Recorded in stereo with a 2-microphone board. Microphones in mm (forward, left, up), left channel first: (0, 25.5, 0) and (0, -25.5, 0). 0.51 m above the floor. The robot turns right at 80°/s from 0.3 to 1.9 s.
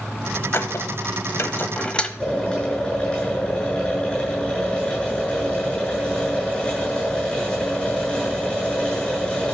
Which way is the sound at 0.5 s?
50° left (ahead or behind).